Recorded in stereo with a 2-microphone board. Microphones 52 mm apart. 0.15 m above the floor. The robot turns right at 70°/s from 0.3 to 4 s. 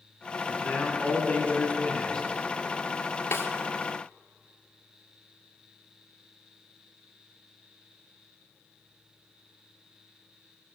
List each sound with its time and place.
0.5 s a man speaking: 30° left, 1.7 m; by 2.3 s 155° left, 1.7 m
3.3 s a snare drum: 55° left (ahead or behind), 1.2 m; by 3.5 s 45° left (ahead or behind), 1.2 m